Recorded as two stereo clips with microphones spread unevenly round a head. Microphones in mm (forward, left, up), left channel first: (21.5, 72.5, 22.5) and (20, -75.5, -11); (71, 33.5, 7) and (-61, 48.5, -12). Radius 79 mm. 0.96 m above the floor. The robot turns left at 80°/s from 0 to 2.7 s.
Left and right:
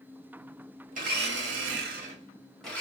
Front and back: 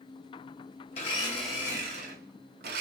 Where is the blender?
50° right, 0.8 m; by 2.8 s 170° left, 0.8 m.